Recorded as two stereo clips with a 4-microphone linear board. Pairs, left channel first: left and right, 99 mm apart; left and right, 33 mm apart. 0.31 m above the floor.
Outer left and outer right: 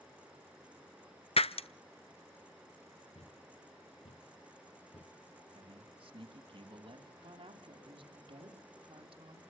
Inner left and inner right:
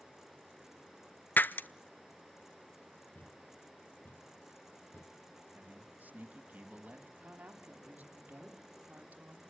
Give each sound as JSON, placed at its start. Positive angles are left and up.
{"t": 1.4, "sound": "breaking glass", "side_deg": 75, "distance_m": 0.7}
{"t": 3.1, "sound": "a thud", "side_deg": 85, "distance_m": 1.4}
{"t": 5.5, "sound": "a man speaking", "side_deg": -60, "distance_m": 3.0}
{"t": 7.2, "sound": "a woman speaking", "side_deg": -60, "distance_m": 3.5}